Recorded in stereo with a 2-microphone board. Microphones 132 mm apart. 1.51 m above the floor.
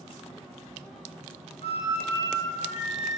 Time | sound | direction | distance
1.6 | a flute | 50° left (ahead or behind) | 3 m